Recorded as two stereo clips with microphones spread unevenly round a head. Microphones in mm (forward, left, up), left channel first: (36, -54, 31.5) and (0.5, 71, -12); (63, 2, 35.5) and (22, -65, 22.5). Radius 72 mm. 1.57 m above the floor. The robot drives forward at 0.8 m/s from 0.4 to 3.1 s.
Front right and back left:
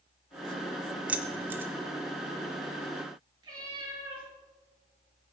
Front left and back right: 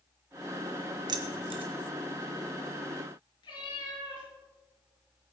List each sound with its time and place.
1.1 s keys jangling: 155° right, 0.7 m; by 1.7 s 170° right, 1.0 m
3.4 s a cat meowing: 40° left, 6 m